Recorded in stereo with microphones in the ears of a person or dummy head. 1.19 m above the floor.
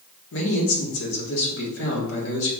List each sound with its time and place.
0.3 s a man speaking: 75° left (ahead or behind), 1.7 m